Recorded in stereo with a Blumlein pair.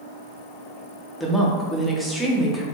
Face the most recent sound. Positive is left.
turn(degrees=0)